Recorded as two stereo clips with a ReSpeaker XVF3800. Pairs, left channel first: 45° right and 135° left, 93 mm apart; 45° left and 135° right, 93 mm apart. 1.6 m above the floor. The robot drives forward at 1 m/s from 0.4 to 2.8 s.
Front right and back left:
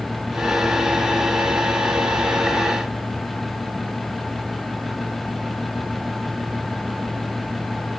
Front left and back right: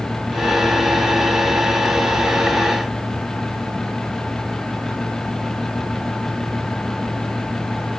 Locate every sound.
Only background noise.